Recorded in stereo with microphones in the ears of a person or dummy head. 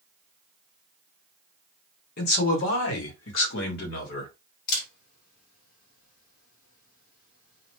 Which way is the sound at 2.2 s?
55° left (ahead or behind).